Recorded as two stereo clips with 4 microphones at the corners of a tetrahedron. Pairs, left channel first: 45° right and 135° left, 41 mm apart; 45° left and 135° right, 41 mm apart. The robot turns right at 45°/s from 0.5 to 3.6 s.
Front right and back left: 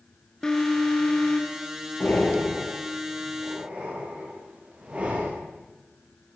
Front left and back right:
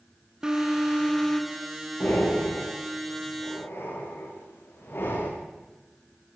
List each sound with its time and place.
0.4 s an alarm: 90° right, 2.5 m; by 1.6 s 40° right, 2.5 m
2.0 s breathing: straight ahead, 7 m; by 5.3 s 75° left, 7 m